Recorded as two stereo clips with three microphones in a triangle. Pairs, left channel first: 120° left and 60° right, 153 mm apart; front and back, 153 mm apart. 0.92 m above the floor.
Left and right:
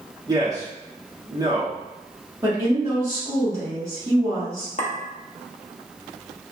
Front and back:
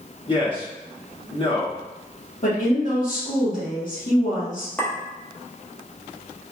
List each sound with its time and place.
0.3 s a man speaking: 15° right, 1.0 m
2.4 s a woman speaking: 10° left, 1.4 m
4.8 s a clink: 80° left, 0.8 m